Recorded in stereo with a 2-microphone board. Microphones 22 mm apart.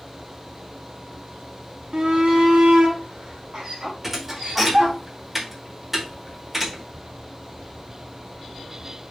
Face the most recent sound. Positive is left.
turn(degrees=-15)  # may be behind; listen again after turning